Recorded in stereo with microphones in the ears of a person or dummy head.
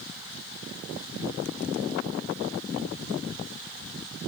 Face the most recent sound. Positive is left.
No sound to turn to.